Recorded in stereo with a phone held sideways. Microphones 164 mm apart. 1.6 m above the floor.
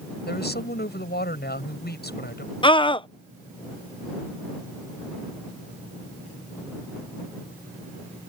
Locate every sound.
0.3 s a woman speaking: 85° left
2.6 s a scream: 30° left (ahead or behind)